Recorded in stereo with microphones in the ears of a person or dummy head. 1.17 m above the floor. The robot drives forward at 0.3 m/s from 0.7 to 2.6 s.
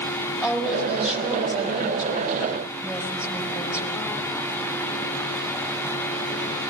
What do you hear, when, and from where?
0.4 s a woman speaking: 5° right (ahead or behind), 4.5 m